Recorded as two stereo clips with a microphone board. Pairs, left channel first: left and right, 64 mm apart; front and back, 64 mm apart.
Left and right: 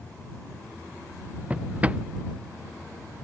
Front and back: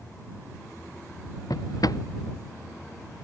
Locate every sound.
1.5 s a drawer: 20° right